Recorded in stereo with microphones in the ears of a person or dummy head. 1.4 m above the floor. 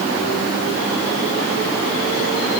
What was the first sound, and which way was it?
Only background noise.